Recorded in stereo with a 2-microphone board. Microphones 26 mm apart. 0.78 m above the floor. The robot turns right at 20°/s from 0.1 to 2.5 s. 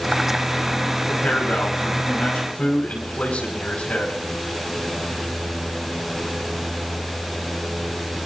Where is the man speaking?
75° left (ahead or behind), 5 m; by 4.1 s 70° left (ahead or behind), 5 m.